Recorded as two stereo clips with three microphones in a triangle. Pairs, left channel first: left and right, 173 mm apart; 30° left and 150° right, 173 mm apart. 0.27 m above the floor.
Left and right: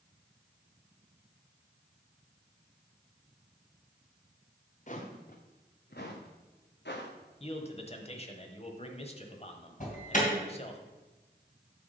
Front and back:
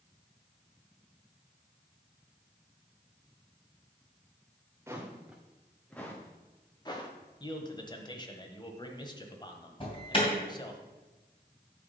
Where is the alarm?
75° left, 3 m.